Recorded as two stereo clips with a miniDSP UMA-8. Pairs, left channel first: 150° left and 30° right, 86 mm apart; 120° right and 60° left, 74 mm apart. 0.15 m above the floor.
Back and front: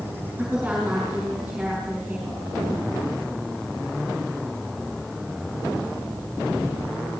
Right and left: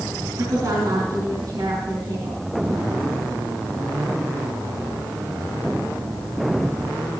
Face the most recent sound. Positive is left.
turn(degrees=45)